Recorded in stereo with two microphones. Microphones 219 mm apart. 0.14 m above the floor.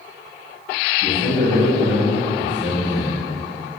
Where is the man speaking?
35° left (ahead or behind), 1.8 m.